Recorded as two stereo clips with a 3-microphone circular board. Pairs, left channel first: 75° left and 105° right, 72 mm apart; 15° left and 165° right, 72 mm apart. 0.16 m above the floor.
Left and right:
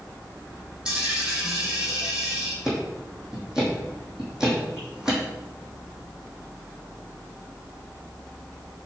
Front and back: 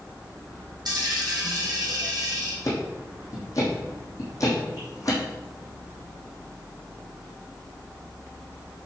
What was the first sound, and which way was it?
A dropped coin, 175° left.